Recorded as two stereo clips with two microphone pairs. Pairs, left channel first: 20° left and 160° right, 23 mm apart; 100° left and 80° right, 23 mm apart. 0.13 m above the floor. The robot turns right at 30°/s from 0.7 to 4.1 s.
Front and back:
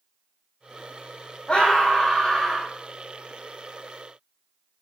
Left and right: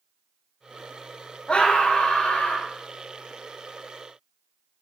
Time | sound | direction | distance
1.5 | a scream | 65° left | 4.5 m